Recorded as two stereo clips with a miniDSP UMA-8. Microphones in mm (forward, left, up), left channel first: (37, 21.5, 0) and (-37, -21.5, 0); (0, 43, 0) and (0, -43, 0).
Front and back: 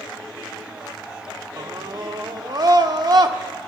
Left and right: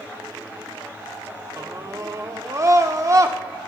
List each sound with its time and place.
1.6 s a scream: 135° right, 1.1 m